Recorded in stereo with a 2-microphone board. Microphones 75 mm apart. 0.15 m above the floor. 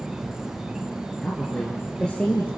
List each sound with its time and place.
0.0 s an insect: 10° right (ahead or behind), 2 m
1.2 s a woman speaking: 15° left (ahead or behind), 3 m